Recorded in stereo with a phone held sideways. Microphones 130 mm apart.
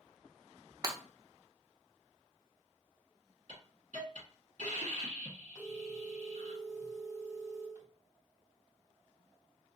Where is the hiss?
70° right (ahead or behind), 1.9 m.